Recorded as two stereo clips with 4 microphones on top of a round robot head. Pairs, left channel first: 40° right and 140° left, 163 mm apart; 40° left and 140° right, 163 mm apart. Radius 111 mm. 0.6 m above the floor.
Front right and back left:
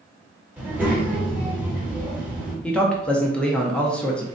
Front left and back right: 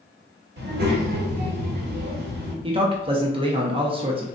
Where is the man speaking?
120° right, 0.6 m.